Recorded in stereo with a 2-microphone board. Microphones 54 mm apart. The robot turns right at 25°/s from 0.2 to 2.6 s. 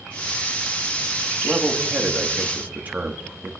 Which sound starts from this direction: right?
A man speaking, at 1.4 s.